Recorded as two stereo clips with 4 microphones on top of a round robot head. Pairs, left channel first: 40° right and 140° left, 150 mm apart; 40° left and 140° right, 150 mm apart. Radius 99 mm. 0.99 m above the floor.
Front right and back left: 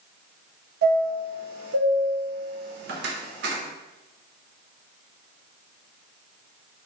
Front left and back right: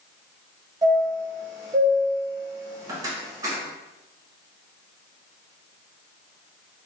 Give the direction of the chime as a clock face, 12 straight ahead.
7 o'clock.